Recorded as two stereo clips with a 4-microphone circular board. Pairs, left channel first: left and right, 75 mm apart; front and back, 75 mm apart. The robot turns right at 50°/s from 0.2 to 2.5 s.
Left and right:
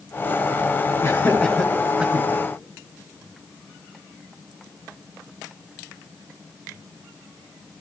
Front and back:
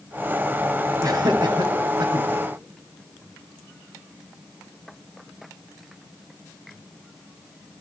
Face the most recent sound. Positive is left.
turn(degrees=-145)